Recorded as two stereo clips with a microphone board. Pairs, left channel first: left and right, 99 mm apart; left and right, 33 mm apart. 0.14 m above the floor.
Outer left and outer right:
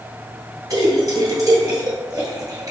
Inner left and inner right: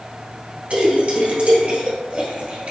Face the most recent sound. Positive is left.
turn(degrees=-35)  # may be behind; listen again after turning